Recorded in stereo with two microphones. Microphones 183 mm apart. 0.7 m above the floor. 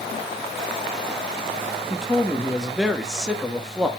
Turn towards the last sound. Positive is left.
turn(degrees=-5)  # may be behind; listen again after turning